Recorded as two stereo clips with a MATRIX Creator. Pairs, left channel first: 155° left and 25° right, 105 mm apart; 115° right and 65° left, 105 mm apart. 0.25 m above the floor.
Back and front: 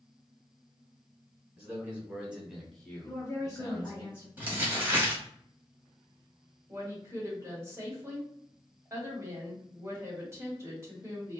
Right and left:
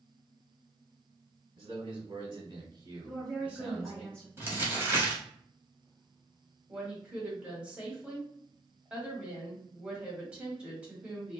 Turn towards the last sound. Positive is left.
turn(degrees=0)